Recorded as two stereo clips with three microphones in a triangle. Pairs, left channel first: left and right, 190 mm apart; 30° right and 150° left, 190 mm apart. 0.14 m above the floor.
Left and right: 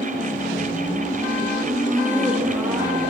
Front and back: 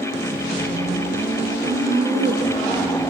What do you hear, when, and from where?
1.6 s laughter: 175° left, 5.5 m; by 3.0 s 165° right, 5 m